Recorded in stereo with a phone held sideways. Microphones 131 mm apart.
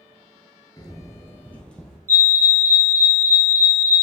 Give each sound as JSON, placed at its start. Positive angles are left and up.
{"t": 0.8, "sound": "footsteps", "side_deg": 30, "distance_m": 1.0}
{"t": 2.1, "sound": "a fire alarm", "side_deg": -25, "distance_m": 1.3}